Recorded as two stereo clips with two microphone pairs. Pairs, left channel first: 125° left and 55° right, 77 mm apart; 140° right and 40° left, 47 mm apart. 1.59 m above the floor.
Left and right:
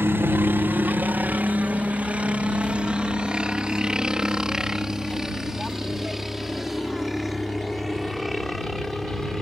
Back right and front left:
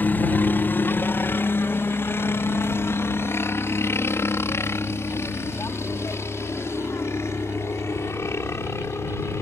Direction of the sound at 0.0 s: 110° right.